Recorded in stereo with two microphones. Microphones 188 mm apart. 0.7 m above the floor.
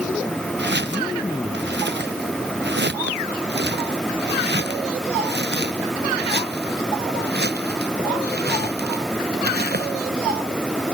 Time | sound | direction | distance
0.6 | footsteps | 90° right | ?